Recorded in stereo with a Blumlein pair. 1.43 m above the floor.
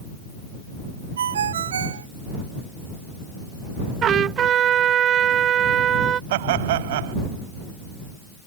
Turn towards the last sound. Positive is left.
turn(degrees=-55)